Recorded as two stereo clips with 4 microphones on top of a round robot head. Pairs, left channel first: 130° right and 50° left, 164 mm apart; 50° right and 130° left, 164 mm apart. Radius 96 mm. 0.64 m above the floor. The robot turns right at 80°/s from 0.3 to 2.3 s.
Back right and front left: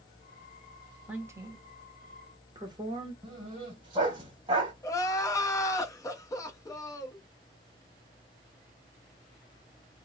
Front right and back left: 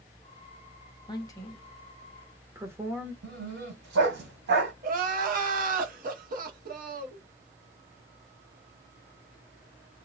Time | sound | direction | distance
1.1 | a woman speaking | 25° right | 1.0 m
3.2 | a dog barking | 115° left | 1.3 m
4.8 | crying | 160° left | 0.6 m